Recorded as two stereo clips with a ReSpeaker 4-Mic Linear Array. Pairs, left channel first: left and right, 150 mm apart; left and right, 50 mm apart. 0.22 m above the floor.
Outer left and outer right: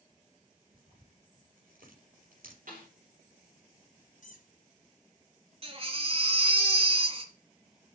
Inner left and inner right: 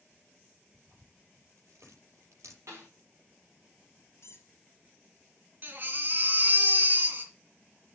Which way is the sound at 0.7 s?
70° right (ahead or behind).